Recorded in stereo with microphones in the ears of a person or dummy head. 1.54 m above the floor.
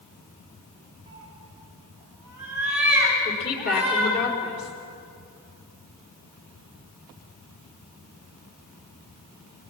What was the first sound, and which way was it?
A cat meowing, 20° right (ahead or behind).